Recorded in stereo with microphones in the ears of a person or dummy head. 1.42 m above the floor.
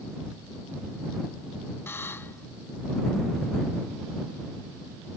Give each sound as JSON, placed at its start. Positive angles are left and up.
{"t": 1.9, "sound": "a buzzer", "side_deg": 10}